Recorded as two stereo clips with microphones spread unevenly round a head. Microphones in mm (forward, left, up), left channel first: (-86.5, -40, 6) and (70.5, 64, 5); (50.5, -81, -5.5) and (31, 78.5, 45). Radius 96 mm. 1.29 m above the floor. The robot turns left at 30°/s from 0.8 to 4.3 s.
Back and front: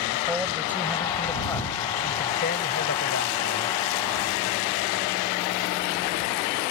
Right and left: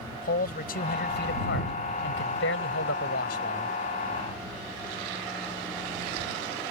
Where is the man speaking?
50° right; by 3.7 s 135° right.